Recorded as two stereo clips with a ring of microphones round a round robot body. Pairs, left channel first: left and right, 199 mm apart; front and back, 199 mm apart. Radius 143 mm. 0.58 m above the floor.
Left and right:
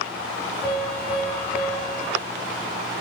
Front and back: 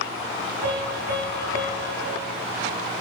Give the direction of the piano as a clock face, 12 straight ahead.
6 o'clock.